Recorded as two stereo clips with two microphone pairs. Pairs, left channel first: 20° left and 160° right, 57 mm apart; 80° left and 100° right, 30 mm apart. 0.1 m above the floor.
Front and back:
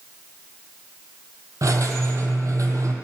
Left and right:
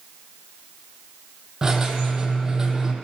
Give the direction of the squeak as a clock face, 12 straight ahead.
6 o'clock.